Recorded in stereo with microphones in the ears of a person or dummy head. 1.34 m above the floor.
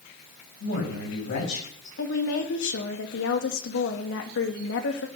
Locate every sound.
0.6 s a man speaking: 65° left (ahead or behind), 7 m
2.0 s a woman speaking: 65° left (ahead or behind), 1.9 m